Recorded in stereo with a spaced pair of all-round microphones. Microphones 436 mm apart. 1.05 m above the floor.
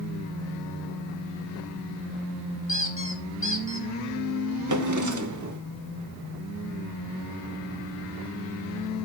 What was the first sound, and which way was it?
A squeak, 25° left (ahead or behind).